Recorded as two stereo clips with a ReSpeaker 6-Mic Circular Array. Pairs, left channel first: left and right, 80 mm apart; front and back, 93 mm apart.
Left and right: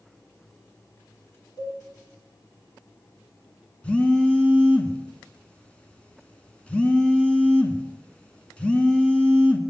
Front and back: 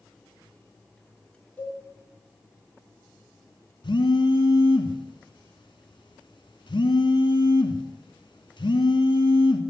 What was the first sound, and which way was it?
A cowbell, 65° left.